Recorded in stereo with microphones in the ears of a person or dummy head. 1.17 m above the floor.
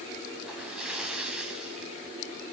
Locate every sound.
0.4 s a splash: 5° right (ahead or behind), 3.5 m